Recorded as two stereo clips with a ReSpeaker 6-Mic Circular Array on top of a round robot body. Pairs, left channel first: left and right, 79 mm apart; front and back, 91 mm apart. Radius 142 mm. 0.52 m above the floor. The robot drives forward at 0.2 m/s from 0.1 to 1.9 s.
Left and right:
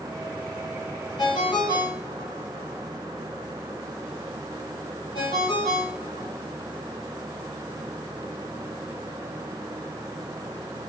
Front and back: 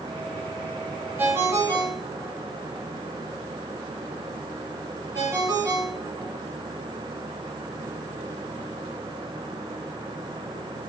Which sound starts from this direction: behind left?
A ringtone, at 1.2 s.